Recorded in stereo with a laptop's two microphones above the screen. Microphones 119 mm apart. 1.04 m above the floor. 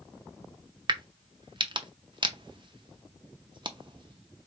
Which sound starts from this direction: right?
A crack, at 0.9 s.